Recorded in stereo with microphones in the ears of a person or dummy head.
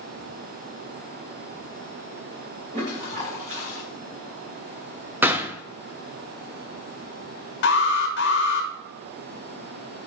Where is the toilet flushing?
40° right (ahead or behind), 2 m.